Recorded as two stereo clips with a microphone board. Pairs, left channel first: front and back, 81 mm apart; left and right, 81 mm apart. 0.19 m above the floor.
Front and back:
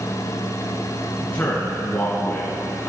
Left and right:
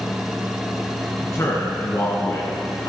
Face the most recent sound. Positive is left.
turn(degrees=60)